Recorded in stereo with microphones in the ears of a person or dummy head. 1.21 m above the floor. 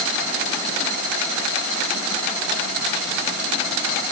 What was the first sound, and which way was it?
Only background noise.